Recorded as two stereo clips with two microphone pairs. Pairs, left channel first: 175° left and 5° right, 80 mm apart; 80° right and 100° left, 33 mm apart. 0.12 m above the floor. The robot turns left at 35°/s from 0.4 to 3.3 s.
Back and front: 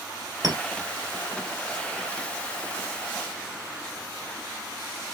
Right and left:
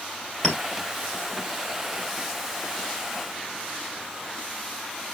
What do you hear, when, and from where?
0.4 s a clink: 5° right, 2.5 m; by 0.6 s 10° right, 2.5 m